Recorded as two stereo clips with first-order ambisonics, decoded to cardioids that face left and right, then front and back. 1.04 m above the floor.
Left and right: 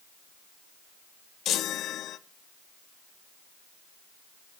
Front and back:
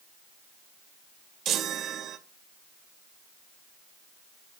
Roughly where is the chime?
Behind left.